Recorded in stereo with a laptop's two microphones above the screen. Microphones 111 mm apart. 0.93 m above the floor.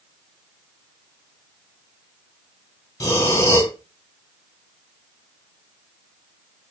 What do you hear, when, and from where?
3.0 s breathing: 30° left (ahead or behind), 0.9 m